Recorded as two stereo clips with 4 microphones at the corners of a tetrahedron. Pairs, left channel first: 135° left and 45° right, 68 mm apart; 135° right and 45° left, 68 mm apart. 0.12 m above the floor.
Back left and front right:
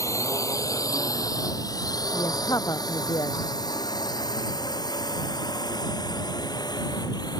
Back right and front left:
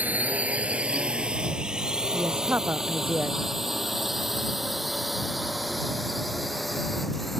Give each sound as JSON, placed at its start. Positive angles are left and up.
{"t": 0.0, "sound": "a drone", "azimuth_deg": 110}
{"t": 2.1, "sound": "a woman speaking", "azimuth_deg": 105}